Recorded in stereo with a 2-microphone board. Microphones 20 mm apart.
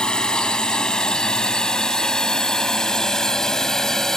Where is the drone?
40° left (ahead or behind); by 4.2 s 25° left (ahead or behind).